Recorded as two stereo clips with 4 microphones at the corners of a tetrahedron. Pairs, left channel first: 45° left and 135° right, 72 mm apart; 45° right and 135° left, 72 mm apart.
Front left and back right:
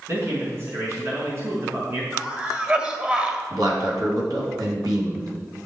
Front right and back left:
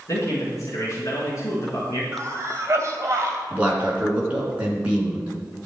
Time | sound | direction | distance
0.1 | a man speaking | 85° right | 5 m
2.1 | a cough | 165° left | 2 m
3.5 | a man speaking | 155° right | 4 m